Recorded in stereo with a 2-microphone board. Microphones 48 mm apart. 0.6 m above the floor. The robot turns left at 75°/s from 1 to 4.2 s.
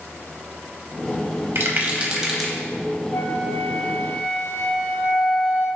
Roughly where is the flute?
Left.